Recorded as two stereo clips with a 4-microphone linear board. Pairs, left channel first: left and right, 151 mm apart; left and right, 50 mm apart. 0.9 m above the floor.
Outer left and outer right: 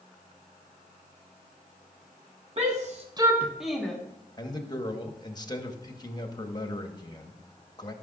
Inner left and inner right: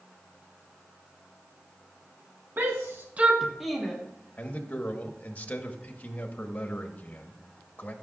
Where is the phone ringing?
I don't hear a phone ringing.